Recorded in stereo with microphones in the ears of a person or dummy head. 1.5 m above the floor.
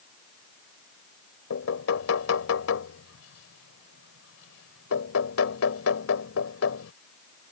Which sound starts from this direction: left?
Knocking, at 1.5 s.